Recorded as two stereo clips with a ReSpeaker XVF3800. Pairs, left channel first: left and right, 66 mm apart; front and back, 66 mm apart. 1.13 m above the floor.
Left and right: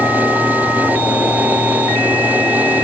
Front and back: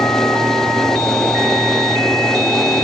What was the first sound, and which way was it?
Only background noise.